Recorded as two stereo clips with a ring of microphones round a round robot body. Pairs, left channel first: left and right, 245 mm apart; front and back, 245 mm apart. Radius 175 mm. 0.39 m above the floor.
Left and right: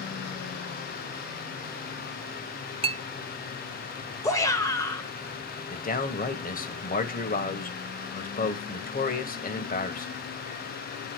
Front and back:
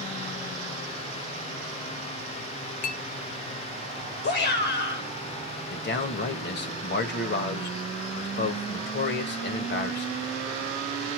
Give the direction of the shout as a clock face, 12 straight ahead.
11 o'clock.